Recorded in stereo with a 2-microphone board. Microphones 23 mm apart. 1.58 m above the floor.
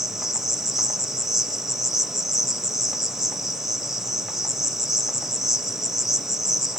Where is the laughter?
I don't hear laughter.